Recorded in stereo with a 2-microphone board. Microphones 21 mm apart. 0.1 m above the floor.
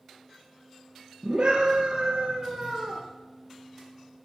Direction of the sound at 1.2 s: 60° right (ahead or behind).